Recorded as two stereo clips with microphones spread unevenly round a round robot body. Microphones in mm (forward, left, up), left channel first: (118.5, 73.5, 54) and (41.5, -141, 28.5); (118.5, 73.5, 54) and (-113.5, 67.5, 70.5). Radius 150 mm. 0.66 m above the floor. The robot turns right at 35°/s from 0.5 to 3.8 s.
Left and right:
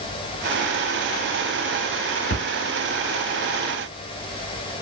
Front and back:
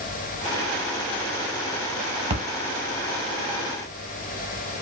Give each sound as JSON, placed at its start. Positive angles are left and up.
{"t": 2.3, "sound": "a splash", "azimuth_deg": 115, "distance_m": 1.0}